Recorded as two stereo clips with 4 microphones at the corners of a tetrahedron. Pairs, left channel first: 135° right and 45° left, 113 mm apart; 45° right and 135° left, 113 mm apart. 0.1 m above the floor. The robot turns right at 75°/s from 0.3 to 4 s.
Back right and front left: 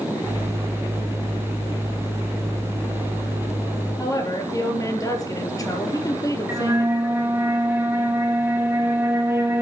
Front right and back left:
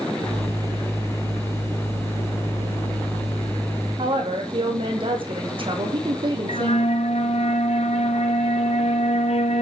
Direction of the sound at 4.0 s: 170° left.